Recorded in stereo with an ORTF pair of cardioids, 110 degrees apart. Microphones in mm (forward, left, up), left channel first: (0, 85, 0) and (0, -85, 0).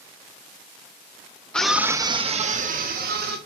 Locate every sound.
1.5 s a scream: 5° left, 1.1 m; by 3.4 s 70° right, 1.9 m